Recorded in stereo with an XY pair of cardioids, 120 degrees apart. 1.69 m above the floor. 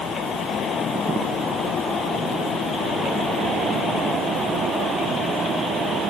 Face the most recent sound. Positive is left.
No sound to turn to.